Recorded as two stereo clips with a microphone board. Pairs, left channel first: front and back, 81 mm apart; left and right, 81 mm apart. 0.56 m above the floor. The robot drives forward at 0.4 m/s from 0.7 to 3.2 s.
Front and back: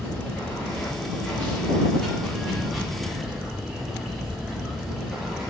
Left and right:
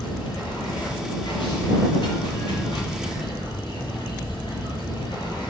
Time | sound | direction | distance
0.0 | running water | 70° left | 3 m